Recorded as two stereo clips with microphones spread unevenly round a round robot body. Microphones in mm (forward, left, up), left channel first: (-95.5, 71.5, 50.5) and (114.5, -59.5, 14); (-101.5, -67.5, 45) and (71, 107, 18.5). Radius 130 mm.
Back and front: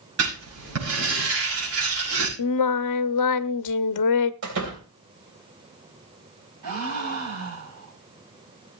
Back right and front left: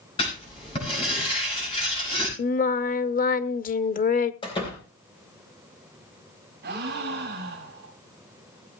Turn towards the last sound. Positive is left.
turn(degrees=-10)